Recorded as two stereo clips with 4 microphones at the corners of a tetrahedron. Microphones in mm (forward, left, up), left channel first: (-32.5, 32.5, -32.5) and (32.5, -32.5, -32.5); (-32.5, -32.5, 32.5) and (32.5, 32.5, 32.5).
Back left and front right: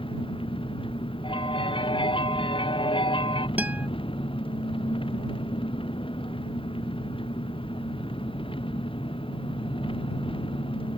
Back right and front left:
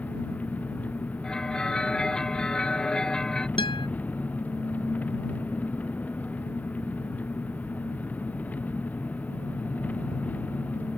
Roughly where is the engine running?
Behind left.